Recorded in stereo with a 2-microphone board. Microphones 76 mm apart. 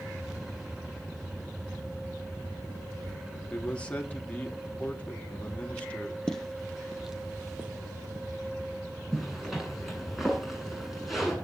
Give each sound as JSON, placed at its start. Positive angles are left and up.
{"t": 3.5, "sound": "a man speaking", "side_deg": 15, "distance_m": 3.0}
{"t": 6.3, "sound": "footsteps", "side_deg": 10, "distance_m": 2.5}
{"t": 9.1, "sound": "a zipper", "side_deg": -5, "distance_m": 9.5}